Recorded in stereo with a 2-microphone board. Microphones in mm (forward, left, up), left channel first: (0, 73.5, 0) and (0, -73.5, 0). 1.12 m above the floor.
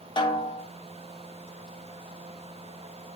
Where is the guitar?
I don't hear a guitar.